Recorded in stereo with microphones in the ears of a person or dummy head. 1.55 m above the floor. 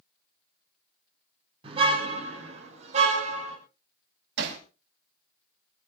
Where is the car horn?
40° right (ahead or behind), 5.5 m; by 3.6 s 50° right (ahead or behind), 5 m.